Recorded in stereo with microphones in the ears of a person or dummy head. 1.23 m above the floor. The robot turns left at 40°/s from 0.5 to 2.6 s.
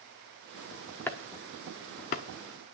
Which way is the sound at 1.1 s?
10° left (ahead or behind).